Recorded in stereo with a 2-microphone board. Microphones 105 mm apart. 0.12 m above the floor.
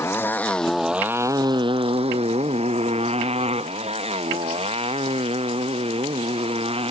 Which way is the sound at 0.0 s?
25° left (ahead or behind).